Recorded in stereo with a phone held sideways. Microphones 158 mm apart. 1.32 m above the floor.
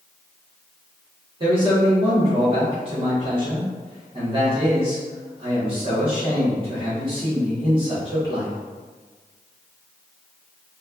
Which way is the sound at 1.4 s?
35° right (ahead or behind).